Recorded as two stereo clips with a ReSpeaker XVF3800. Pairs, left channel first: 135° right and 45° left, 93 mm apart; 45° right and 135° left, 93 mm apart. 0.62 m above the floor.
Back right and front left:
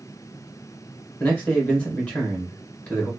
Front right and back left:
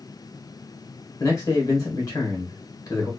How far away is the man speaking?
About 1.6 m.